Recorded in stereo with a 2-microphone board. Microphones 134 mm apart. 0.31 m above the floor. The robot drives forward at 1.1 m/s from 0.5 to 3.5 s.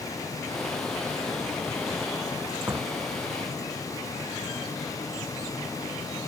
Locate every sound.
2.7 s a door slam: 15° right (ahead or behind)